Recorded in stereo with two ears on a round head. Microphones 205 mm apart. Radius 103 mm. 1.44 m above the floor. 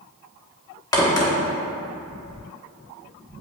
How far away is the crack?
About 1.3 m.